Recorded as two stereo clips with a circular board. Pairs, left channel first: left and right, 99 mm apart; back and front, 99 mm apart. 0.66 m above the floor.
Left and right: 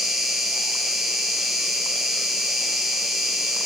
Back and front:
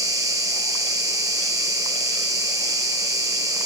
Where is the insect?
10° right, 2 m.